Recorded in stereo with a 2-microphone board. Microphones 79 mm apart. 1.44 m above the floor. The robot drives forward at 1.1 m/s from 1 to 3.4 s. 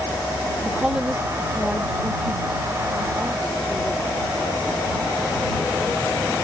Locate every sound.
0.6 s a woman speaking: 15° right (ahead or behind); by 4.5 s 5° right (ahead or behind)